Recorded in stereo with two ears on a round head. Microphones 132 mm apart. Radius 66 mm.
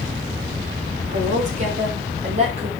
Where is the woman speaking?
55° right (ahead or behind), 7 m; by 2.7 s 50° right (ahead or behind), 6.5 m.